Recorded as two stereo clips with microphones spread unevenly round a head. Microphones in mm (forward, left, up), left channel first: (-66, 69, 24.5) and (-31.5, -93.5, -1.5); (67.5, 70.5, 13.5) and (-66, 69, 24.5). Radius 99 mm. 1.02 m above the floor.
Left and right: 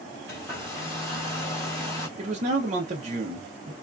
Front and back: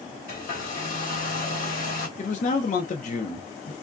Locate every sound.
0.3 s a hair dryer: 20° left, 1.4 m
2.2 s a man speaking: 30° right, 0.7 m